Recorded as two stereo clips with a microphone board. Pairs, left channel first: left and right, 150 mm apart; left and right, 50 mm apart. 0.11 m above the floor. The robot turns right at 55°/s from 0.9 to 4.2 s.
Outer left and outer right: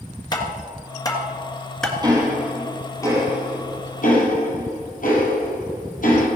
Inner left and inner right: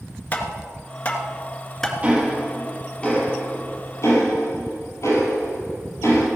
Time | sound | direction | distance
0.3 | tapping | 30° left (ahead or behind) | 1.9 m
2.0 | ticking | 30° right (ahead or behind) | 3.5 m